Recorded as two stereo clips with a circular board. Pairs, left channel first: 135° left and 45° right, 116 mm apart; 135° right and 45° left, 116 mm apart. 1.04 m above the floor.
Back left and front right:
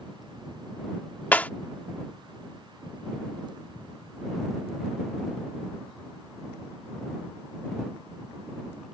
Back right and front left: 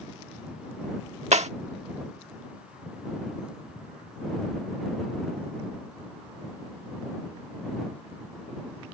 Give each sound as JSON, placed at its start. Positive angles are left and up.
{"t": 1.3, "sound": "breaking glass", "azimuth_deg": 60}